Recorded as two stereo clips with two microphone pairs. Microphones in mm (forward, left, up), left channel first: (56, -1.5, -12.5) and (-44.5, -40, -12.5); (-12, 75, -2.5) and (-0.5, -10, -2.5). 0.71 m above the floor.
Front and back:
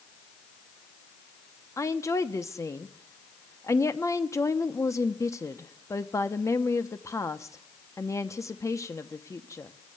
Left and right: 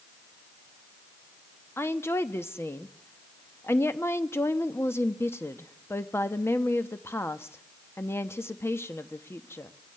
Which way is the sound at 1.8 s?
60° left.